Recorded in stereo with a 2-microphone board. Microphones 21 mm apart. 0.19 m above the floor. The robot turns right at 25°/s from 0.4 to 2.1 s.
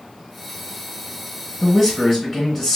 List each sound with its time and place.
1.6 s a man speaking: 5° right (ahead or behind), 1.2 m; by 2.8 s centre (ahead or behind), 1.2 m